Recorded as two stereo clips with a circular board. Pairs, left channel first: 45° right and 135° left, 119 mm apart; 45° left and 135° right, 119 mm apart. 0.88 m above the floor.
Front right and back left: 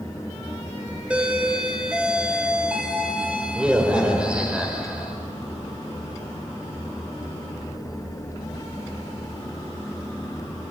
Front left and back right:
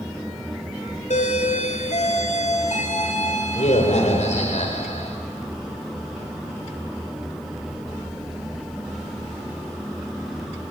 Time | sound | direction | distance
1.1 | a doorbell | 55° left | 4.5 m